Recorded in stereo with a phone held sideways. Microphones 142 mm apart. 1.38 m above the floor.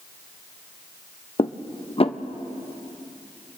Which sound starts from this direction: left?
Dishes clattering, at 1.4 s.